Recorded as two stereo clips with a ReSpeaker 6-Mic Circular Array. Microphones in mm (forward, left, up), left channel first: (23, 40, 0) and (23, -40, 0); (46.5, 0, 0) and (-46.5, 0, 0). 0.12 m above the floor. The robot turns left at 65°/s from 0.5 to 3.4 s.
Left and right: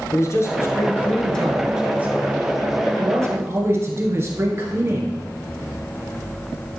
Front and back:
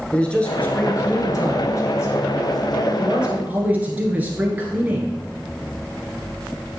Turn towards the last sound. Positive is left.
turn(degrees=-120)